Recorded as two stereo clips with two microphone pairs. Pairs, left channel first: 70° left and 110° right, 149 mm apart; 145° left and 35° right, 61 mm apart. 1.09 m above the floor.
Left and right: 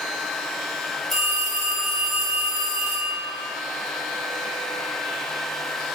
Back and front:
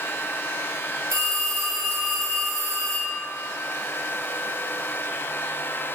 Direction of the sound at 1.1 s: 15° right.